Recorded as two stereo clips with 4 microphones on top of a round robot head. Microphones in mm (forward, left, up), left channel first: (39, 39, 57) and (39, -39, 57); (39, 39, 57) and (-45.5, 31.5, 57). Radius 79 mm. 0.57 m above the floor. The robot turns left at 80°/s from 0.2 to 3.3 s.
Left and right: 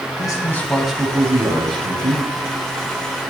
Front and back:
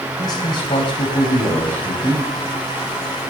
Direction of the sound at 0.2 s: 55° left.